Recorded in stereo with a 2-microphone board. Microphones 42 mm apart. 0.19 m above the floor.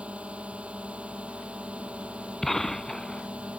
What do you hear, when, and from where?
0.0 s a drone: 30° right (ahead or behind)
2.4 s a gunshot: 10° left (ahead or behind)